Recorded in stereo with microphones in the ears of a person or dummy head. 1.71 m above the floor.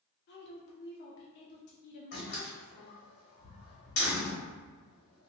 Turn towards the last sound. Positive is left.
turn(degrees=50)  # may be behind; listen again after turning